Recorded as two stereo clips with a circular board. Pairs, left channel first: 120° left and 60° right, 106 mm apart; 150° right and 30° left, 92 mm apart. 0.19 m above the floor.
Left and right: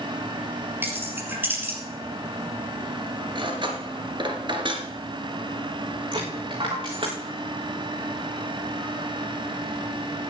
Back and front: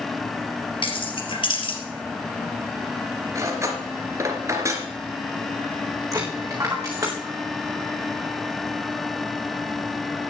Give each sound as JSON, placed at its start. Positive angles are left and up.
{"t": 0.8, "sound": "keys jangling", "azimuth_deg": -130, "distance_m": 3.5}
{"t": 3.4, "sound": "cutlery clinking", "azimuth_deg": -25, "distance_m": 2.0}
{"t": 6.1, "sound": "a dropped coin", "azimuth_deg": -30, "distance_m": 4.5}